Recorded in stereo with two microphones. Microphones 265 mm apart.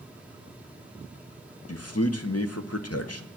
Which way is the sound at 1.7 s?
65° left (ahead or behind).